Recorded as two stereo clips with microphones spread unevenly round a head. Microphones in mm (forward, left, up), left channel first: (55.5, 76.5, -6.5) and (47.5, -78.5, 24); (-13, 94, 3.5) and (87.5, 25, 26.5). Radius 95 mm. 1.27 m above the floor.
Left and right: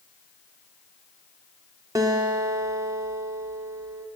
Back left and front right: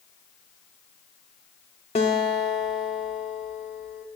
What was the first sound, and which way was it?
A guitar, 155° right.